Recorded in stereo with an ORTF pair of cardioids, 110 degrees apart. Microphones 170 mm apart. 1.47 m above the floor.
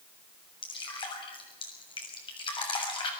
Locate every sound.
0.6 s dripping: 30° left, 7 m